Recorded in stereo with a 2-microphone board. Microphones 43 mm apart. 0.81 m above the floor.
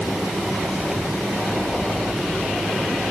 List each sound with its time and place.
Only background noise.